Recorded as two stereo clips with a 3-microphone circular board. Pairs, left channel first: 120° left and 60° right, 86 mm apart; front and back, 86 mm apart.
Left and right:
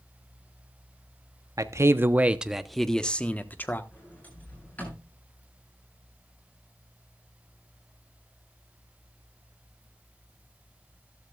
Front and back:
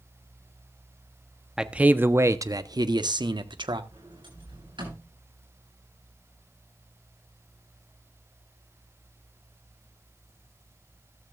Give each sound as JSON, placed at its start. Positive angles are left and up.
{"t": 1.6, "sound": "a man speaking", "azimuth_deg": -100, "distance_m": 0.9}
{"t": 3.9, "sound": "a sliding door", "azimuth_deg": -170, "distance_m": 9.0}